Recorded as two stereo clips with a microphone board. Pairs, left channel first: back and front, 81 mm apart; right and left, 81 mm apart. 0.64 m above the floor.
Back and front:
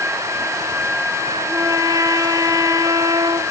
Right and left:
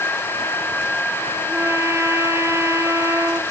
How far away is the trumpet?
About 2 m.